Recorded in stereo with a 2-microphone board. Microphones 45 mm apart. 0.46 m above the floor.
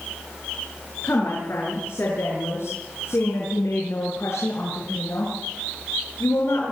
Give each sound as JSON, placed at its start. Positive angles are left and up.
{"t": 1.0, "sound": "a woman speaking", "side_deg": 60, "distance_m": 6.5}